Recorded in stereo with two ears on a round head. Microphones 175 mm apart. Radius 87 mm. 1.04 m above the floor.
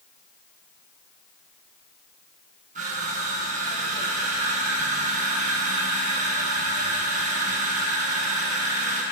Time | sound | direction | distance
2.8 | crushing | 40° right (ahead or behind) | 8.5 m